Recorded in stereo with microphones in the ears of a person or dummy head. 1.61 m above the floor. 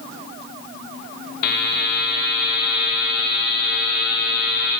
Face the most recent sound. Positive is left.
turn(degrees=60)  # may be behind; listen again after turning